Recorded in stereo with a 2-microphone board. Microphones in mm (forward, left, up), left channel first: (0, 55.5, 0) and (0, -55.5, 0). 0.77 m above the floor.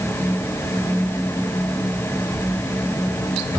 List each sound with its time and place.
Only background noise.